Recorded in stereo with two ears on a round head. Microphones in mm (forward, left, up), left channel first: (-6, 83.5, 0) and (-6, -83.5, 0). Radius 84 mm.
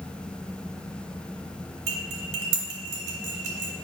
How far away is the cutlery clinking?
About 2 m.